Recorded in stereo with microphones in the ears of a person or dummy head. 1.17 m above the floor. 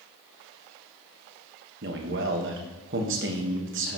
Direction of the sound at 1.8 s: 60° right (ahead or behind).